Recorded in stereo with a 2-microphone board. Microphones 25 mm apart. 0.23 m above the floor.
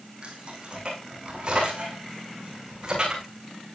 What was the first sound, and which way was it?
Keys jangling, 40° right (ahead or behind).